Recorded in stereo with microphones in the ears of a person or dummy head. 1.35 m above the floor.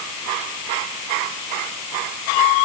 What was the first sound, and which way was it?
Only background noise.